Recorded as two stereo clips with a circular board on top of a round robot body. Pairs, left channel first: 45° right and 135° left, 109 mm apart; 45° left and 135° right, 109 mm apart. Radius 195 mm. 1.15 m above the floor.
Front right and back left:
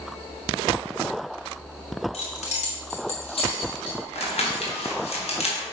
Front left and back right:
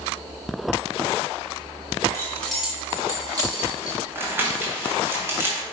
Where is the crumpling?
65° right, 2.0 m.